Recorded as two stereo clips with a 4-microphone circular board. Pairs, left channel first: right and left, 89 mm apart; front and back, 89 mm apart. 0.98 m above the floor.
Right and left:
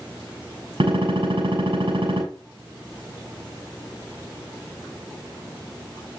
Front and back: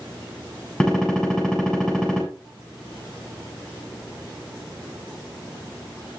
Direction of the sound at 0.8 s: 80° left.